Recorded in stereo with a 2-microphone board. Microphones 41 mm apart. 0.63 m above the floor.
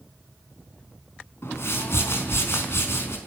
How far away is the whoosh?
About 5 m.